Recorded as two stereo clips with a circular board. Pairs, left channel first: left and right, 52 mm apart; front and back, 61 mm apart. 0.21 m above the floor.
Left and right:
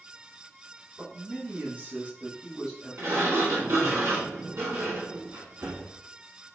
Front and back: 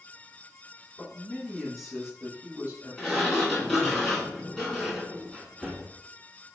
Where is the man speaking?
60° right, 1.5 m; by 4.0 s 170° left, 1.9 m.